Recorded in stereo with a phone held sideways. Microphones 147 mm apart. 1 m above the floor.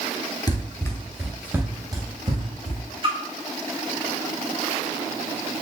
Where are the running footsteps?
30° left (ahead or behind), 1.1 m; by 2.8 s 50° right (ahead or behind), 1.5 m.